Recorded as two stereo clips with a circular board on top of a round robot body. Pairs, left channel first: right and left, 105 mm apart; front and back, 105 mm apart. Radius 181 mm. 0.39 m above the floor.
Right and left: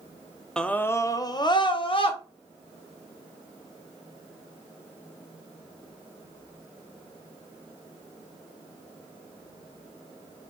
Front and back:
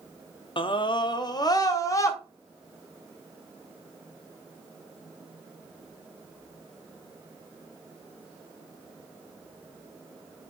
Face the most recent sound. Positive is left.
turn(degrees=-60)